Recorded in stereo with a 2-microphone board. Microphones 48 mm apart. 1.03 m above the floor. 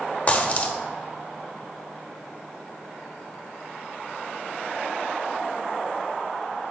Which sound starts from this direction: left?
A dropped coin, at 0.3 s.